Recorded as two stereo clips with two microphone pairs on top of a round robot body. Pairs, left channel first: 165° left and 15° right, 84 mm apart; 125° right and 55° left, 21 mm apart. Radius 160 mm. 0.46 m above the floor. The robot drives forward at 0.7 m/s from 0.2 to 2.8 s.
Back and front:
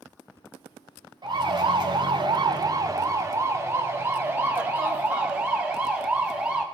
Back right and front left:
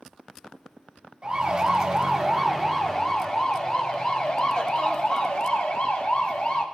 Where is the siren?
Straight ahead, 3 m; by 6.6 s 95° right, 4.5 m.